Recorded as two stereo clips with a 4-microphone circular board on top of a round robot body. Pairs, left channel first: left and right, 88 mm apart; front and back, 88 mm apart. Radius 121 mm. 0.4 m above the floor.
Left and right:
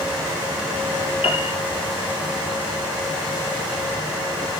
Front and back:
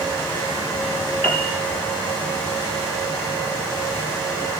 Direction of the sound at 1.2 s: 75° left.